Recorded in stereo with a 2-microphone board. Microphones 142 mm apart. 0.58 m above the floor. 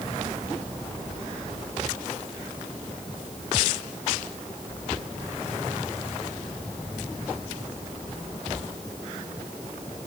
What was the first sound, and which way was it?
Only background noise.